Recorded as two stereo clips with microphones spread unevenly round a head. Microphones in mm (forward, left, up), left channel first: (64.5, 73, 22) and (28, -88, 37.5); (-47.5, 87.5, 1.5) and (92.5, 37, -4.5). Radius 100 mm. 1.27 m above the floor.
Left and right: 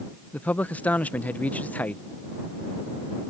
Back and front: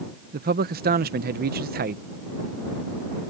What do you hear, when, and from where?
0.3 s a man speaking: 5° right